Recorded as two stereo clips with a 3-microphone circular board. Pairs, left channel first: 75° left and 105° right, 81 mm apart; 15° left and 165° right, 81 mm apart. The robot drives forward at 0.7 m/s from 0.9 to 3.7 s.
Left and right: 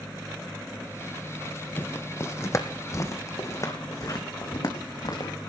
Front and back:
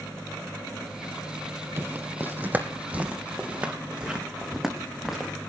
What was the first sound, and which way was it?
Footsteps, 135° left.